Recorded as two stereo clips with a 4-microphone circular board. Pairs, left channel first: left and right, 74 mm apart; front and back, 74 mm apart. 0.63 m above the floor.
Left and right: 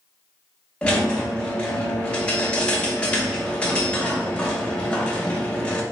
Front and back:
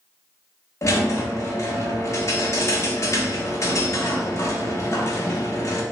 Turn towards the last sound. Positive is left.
turn(degrees=20)